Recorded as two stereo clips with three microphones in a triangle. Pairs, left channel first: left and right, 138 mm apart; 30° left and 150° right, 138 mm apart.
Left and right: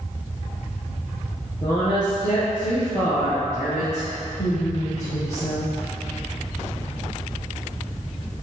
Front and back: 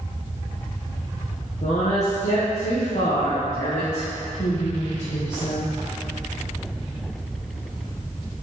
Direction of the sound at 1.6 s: 35° left.